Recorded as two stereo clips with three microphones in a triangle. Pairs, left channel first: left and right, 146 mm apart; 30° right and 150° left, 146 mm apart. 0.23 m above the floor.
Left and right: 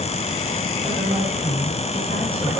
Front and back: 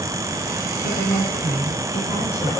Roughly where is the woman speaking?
Ahead.